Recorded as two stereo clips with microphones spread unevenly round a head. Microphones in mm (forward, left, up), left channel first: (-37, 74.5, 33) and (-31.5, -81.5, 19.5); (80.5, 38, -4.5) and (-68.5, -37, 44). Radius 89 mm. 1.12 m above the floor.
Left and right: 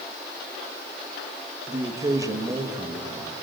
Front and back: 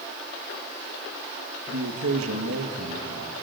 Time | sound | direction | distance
1.7 | a man speaking | 155° right | 1.9 m